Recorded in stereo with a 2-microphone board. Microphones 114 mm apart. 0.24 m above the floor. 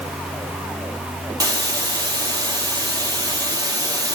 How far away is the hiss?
About 3.5 m.